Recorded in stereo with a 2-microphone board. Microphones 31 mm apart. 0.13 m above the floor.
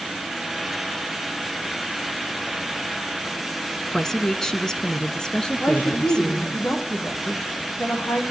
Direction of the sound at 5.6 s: 75° left (ahead or behind).